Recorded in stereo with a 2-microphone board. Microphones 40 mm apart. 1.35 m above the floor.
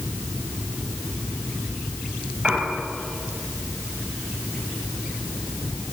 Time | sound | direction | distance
2.4 | a piano | 20° right (ahead or behind) | 8 m